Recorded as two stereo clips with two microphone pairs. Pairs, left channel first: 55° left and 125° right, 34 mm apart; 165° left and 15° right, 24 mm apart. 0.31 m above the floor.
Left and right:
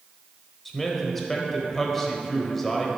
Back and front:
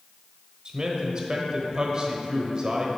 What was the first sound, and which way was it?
A man speaking, 15° right.